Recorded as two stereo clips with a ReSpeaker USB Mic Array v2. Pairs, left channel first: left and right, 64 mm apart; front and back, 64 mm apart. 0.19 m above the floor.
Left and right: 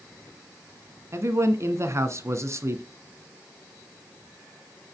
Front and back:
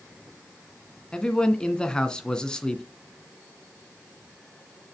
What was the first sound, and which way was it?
A man speaking, 75° right.